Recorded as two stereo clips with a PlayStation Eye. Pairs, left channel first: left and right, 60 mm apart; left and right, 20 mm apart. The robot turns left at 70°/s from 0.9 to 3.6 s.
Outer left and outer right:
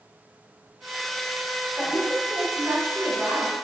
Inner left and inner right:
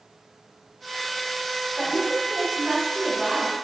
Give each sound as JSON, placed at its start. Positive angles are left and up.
{"t": 1.8, "sound": "a woman speaking", "azimuth_deg": -25, "distance_m": 1.4}